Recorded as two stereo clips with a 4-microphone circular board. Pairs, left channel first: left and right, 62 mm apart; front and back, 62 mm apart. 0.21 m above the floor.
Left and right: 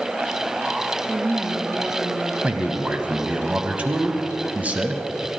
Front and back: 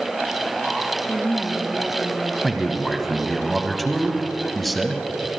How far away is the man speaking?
About 1.1 m.